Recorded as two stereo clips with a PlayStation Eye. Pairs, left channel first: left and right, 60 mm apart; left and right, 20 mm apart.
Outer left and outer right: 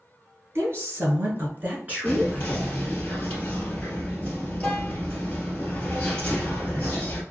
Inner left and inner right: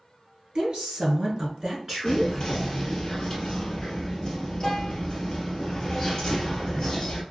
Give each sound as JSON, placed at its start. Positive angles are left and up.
{"t": 0.6, "sound": "a woman speaking", "side_deg": -50, "distance_m": 1.6}
{"t": 2.0, "sound": "whispering", "side_deg": 20, "distance_m": 1.3}